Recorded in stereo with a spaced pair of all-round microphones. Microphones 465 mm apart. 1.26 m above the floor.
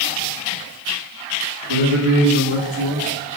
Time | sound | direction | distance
1.7 | a man speaking | 85° right | 2 m